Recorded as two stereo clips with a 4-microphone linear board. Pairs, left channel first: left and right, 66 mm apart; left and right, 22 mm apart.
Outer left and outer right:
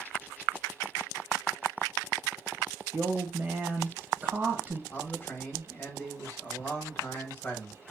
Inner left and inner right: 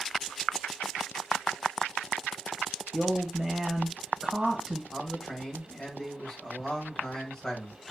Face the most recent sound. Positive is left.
turn(degrees=30)  # may be behind; listen again after turning